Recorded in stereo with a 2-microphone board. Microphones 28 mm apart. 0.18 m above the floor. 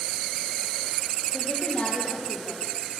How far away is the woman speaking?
About 6.5 m.